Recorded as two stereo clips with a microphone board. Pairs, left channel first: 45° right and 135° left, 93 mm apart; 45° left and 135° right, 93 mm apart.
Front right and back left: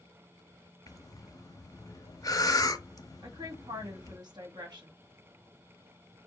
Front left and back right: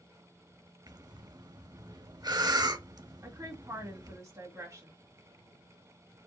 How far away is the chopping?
I don't hear chopping.